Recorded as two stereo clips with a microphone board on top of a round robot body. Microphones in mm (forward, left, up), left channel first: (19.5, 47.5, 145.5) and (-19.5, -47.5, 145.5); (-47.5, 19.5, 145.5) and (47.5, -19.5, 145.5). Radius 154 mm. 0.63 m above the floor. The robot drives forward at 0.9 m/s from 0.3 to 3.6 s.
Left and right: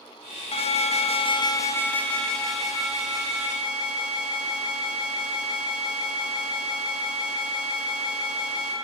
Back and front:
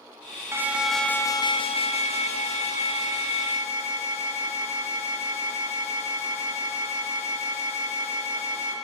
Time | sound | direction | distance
0.5 | an alarm | 45° left | 0.9 m